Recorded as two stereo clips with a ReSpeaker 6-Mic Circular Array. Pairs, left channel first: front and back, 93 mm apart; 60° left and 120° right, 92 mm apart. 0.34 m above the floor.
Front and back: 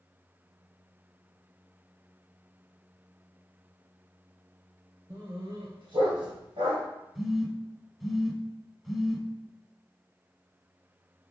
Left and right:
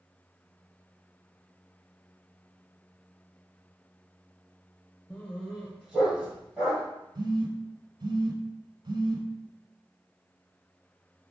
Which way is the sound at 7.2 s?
90° right.